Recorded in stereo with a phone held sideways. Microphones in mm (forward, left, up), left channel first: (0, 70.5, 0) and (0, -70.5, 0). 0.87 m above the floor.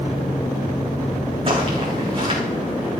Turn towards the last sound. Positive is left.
turn(degrees=-40)  # may be behind; listen again after turning